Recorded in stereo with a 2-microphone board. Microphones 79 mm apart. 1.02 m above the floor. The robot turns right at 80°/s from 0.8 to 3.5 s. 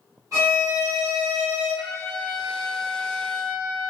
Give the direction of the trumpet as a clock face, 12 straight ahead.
3 o'clock.